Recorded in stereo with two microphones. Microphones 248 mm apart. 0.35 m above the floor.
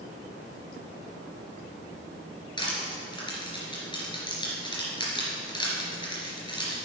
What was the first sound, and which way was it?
Crushing, 20° left (ahead or behind).